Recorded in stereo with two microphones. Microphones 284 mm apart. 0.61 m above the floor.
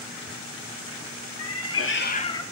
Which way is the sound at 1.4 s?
65° left (ahead or behind).